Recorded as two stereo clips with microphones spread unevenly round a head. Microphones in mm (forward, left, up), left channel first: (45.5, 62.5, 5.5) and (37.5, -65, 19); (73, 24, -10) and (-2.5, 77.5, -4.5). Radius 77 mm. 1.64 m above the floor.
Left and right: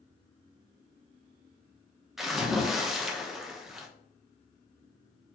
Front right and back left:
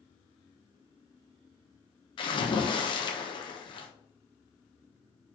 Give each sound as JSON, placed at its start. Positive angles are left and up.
{"t": 2.2, "sound": "a splash", "azimuth_deg": -5, "distance_m": 0.9}